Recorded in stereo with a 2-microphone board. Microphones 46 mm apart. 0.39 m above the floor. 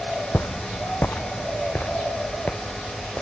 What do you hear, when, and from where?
0.3 s footsteps: 60° left (ahead or behind), 0.6 m; by 3.2 s 25° left (ahead or behind), 2.5 m